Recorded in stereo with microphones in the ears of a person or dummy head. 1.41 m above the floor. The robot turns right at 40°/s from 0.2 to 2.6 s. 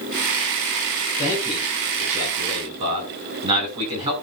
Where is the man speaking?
160° left, 6.5 m; by 4.1 s 145° right, 6.5 m.